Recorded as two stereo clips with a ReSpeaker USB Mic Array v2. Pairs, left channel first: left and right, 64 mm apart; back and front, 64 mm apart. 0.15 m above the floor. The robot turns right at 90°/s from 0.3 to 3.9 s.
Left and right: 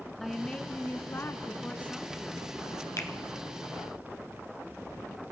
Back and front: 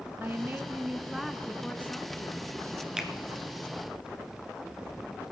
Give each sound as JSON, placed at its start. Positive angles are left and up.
{"t": 0.2, "sound": "a woman speaking", "azimuth_deg": 5, "distance_m": 1.2}
{"t": 3.0, "sound": "a finger snap", "azimuth_deg": 80, "distance_m": 1.3}